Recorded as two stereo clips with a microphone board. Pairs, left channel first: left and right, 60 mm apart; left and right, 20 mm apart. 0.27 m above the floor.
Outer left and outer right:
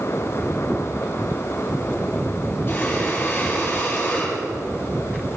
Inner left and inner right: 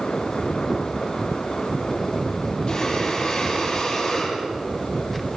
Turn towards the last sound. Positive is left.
turn(degrees=35)  # may be behind; listen again after turning